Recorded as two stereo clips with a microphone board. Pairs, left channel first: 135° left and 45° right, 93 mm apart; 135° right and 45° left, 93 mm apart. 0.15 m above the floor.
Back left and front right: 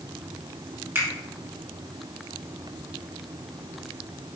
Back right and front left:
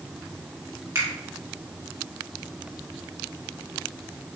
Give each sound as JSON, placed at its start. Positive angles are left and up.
{"t": 0.9, "sound": "a finger snap", "azimuth_deg": 5, "distance_m": 1.4}